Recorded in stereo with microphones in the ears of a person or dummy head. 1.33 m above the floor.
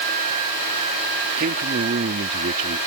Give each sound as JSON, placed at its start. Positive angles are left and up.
{"t": 1.4, "sound": "a man speaking", "side_deg": -45}